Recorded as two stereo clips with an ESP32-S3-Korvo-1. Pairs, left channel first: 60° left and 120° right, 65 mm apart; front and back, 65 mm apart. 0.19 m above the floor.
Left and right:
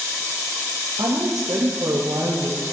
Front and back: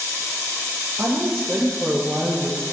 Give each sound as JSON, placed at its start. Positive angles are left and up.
{"t": 1.0, "sound": "a woman speaking", "azimuth_deg": -120, "distance_m": 4.0}